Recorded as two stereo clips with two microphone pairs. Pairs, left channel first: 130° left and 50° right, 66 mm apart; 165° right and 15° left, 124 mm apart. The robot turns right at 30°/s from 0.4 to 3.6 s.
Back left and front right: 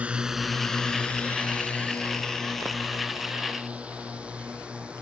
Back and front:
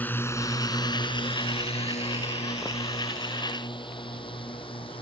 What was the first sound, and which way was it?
A drone, 100° right.